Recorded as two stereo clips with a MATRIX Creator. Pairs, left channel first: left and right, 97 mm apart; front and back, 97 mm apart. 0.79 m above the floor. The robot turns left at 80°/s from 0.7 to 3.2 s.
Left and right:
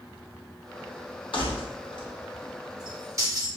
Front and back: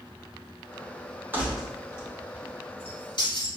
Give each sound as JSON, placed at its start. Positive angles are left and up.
{"t": 1.3, "sound": "keys jangling", "azimuth_deg": 110, "distance_m": 1.0}